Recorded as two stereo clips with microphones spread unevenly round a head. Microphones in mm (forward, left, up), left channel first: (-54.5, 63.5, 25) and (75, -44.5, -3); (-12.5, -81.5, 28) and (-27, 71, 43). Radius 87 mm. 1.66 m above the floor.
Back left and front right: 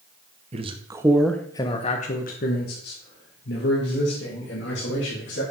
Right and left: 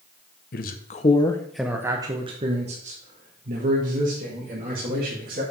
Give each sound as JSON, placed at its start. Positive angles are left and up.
{"t": 0.5, "sound": "a man speaking", "azimuth_deg": -95, "distance_m": 0.8}